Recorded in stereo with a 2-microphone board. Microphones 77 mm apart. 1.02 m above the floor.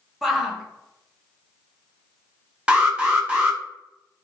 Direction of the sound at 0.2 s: 5° right (ahead or behind).